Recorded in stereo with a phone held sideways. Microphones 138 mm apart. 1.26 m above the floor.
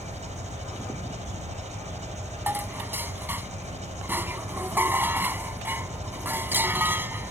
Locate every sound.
0.0 s an engine running: 55° right (ahead or behind)
2.5 s dishes clattering: 15° right (ahead or behind)